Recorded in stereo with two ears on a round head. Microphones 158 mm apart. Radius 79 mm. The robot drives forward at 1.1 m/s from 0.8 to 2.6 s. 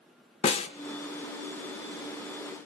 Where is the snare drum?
40° left (ahead or behind), 1.1 m.